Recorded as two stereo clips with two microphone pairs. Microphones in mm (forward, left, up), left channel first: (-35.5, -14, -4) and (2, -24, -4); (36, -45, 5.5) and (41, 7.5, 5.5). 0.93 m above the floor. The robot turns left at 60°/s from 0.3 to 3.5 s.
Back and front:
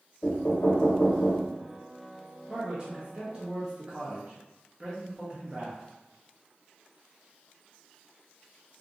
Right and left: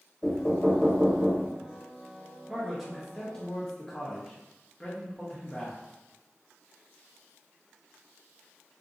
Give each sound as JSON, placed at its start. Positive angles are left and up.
{"t": 0.2, "sound": "knocking", "azimuth_deg": -165, "distance_m": 1.0}
{"t": 2.5, "sound": "a man speaking", "azimuth_deg": 15, "distance_m": 0.8}